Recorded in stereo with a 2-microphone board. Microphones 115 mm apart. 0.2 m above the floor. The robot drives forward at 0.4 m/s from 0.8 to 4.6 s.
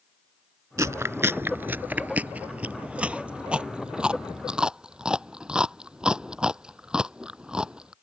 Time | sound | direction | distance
0.8 | chewing | 30° right (ahead or behind) | ?